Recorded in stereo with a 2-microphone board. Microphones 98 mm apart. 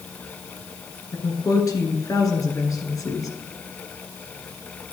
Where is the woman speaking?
35° left (ahead or behind), 2 m.